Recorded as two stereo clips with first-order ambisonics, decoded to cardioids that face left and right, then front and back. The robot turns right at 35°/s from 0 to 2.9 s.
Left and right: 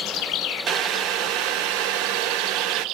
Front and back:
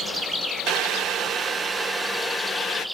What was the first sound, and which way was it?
Boiling, 140° right.